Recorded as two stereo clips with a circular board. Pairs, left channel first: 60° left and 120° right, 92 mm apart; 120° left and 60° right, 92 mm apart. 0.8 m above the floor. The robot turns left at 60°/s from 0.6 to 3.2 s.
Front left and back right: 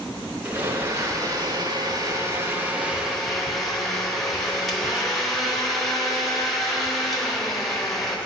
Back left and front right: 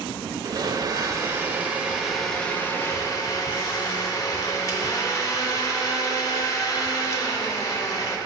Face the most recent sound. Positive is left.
turn(degrees=145)